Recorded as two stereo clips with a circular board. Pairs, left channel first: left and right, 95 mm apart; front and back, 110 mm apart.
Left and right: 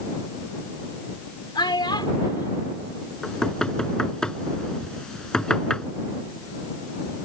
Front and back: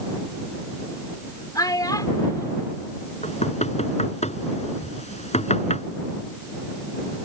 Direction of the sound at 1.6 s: 55° left.